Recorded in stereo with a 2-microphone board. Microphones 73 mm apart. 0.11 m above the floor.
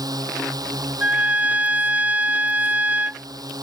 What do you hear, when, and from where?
0.0 s a drone: 60° right (ahead or behind)
1.0 s a trumpet: 20° right (ahead or behind)